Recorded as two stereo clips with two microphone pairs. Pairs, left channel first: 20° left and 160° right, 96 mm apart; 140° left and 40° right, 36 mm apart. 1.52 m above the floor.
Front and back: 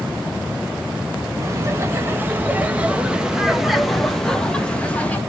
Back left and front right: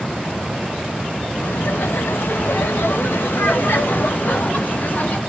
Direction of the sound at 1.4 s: 145° left.